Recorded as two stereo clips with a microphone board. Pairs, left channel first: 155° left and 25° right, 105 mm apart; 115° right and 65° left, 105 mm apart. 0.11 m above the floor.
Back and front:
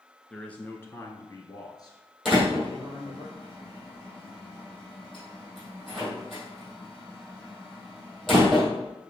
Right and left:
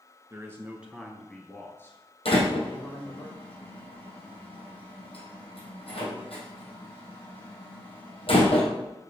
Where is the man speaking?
80° left, 1.2 m; by 3.2 s 160° right, 2.5 m.